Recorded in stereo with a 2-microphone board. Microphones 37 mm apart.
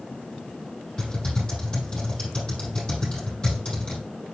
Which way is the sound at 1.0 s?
20° left (ahead or behind).